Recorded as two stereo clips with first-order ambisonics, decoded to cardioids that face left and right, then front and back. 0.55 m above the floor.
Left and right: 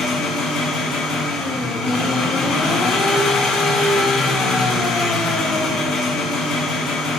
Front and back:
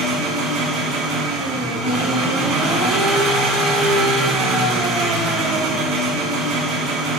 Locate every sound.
0.0 s an engine running: 145° left, 1.2 m